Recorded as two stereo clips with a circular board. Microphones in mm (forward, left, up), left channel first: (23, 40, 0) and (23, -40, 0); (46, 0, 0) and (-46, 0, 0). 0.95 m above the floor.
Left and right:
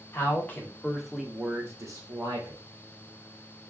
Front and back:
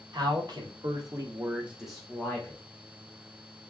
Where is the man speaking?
150° left, 1.0 m; by 2.6 s 70° right, 0.9 m.